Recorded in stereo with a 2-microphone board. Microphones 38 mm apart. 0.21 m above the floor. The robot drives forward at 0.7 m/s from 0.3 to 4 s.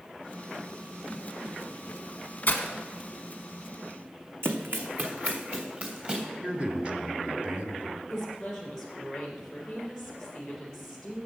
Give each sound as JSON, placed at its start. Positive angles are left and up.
{"t": 2.5, "sound": "breaking glass", "side_deg": 45, "distance_m": 1.1}
{"t": 4.4, "sound": "running footsteps", "side_deg": -70, "distance_m": 1.0}
{"t": 6.4, "sound": "a man speaking", "side_deg": -35, "distance_m": 1.5}
{"t": 8.1, "sound": "a woman speaking", "side_deg": 5, "distance_m": 3.5}